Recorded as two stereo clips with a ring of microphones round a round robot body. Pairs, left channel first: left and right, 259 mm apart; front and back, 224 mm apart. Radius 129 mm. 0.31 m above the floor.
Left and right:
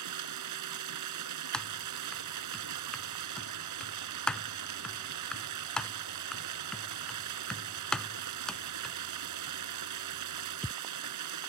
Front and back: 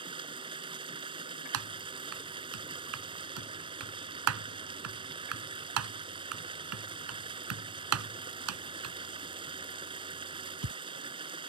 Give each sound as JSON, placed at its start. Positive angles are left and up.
{"t": 0.0, "sound": "running water", "azimuth_deg": -110}
{"t": 1.5, "sound": "typing on a keyboard", "azimuth_deg": 180}